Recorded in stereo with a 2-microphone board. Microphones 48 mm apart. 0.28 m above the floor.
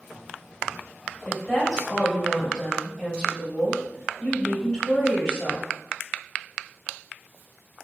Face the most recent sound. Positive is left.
turn(degrees=15)  # may be behind; listen again after turning